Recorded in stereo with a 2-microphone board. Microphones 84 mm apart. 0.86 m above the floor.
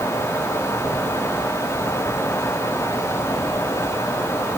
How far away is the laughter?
I don't hear laughter.